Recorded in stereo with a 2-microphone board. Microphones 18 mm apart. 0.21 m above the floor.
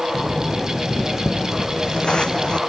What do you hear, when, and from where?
0.1 s footsteps: 45° left (ahead or behind), 1.6 m; by 2.6 s 75° left (ahead or behind), 0.7 m